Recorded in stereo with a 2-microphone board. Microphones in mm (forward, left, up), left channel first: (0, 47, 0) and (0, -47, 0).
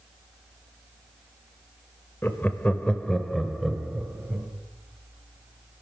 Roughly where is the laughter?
Left.